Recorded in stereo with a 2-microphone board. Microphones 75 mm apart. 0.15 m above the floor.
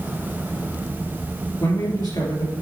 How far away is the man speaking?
About 2.5 m.